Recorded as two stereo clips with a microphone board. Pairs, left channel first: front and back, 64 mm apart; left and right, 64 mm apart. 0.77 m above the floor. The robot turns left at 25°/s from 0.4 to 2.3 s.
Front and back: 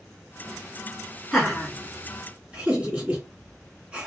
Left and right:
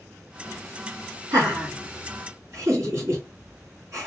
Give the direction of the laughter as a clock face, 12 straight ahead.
3 o'clock.